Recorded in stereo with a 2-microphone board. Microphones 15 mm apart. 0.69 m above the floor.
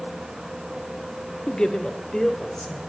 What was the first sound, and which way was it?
A man speaking, 60° left (ahead or behind).